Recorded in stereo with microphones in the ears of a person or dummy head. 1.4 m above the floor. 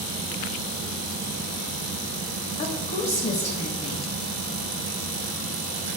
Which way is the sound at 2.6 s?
30° left (ahead or behind).